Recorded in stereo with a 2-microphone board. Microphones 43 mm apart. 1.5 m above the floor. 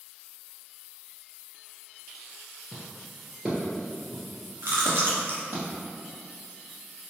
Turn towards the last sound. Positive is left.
turn(degrees=-60)  # may be behind; listen again after turning